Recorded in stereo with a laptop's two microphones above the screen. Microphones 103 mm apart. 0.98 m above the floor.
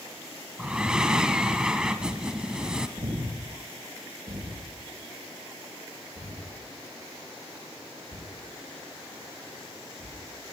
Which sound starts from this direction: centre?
Breathing, at 0.6 s.